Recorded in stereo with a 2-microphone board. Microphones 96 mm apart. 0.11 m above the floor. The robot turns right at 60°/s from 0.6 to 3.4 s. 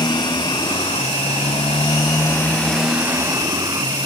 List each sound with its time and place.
0.0 s a motorcycle: 50° left; by 4.0 s 140° right